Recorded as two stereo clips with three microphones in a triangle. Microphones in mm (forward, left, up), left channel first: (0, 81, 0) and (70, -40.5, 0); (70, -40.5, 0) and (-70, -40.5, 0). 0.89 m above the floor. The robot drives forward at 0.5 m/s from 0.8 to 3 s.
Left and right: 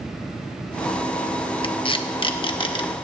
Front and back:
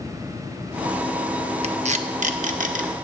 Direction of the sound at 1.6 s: 160° left.